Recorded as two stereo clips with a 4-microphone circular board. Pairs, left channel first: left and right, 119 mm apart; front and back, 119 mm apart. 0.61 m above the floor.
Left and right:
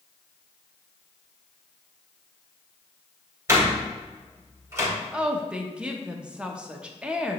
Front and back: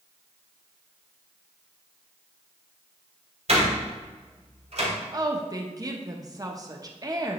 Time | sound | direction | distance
3.5 | a door slam | 160° right | 2.5 m
5.1 | a woman speaking | 165° right | 0.8 m